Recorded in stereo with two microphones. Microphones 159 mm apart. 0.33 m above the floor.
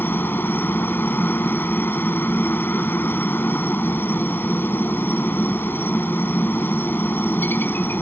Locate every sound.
0.0 s a helicopter: 15° left (ahead or behind)